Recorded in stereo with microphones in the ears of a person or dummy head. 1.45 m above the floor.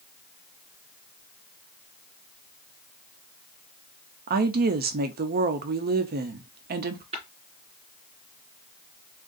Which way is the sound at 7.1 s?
30° right (ahead or behind).